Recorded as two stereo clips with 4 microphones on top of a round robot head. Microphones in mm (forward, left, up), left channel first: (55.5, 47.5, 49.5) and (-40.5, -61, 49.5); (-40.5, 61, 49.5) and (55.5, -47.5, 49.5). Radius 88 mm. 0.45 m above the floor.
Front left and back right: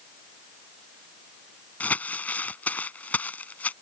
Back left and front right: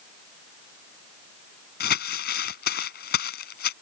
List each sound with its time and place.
1.8 s crumpling: 130° left